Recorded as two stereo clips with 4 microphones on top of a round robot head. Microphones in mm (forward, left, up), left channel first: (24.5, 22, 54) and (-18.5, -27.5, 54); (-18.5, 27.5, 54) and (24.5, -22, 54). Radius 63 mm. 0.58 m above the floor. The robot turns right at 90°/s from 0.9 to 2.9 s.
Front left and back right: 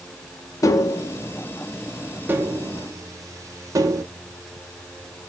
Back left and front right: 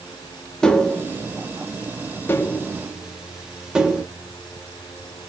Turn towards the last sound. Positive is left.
turn(degrees=-125)